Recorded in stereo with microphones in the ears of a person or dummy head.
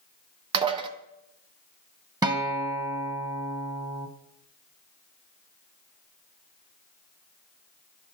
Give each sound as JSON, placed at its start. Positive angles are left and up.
{"t": 0.5, "sound": "dishes clattering", "side_deg": -30, "distance_m": 0.8}
{"t": 2.2, "sound": "a guitar", "side_deg": -15, "distance_m": 0.8}